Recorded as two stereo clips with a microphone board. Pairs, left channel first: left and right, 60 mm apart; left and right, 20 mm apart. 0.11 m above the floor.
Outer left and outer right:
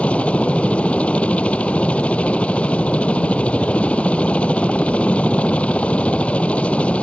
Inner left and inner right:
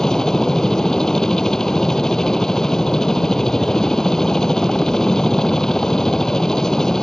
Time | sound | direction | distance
0.0 | a helicopter | 20° left (ahead or behind) | ?